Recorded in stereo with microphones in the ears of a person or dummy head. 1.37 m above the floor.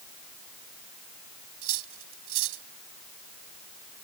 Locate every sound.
1.6 s cutlery clinking: 75° right (ahead or behind)